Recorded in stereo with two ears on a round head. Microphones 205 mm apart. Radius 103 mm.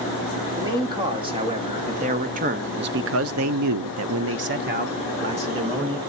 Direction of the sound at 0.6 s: 20° right (ahead or behind).